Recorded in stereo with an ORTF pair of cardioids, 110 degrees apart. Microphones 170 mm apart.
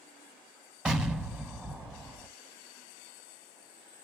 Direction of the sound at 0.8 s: 5° right.